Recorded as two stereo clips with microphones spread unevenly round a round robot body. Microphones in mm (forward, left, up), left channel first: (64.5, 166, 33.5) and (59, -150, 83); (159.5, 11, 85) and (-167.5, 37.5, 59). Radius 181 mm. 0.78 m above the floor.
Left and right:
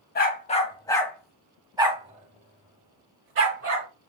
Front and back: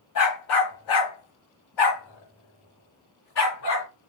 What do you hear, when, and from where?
0.1 s a dog barking: 25° left, 1.4 m; by 3.9 s 50° right, 2 m